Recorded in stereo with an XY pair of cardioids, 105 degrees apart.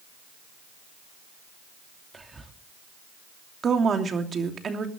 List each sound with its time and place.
2.1 s whispering: 25° right, 2.5 m
3.6 s a woman speaking: 45° right, 2.5 m